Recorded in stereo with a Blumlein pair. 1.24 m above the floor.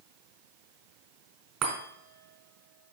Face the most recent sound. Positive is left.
turn(degrees=-35)